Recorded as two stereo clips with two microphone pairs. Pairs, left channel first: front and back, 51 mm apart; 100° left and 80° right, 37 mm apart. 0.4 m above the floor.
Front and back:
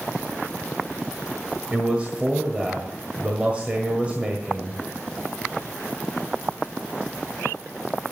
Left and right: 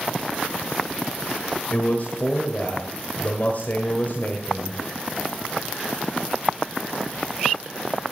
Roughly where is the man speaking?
Behind left.